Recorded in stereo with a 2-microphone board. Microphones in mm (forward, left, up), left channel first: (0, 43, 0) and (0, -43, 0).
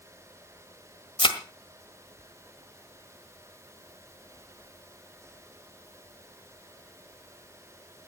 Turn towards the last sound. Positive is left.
turn(degrees=70)  # may be behind; listen again after turning